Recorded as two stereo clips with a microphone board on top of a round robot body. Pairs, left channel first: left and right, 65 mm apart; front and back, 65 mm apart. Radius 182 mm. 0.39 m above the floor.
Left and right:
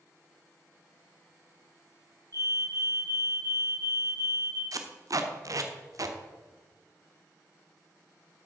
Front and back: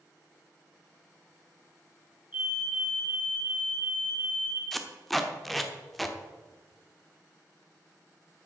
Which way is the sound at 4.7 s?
90° right.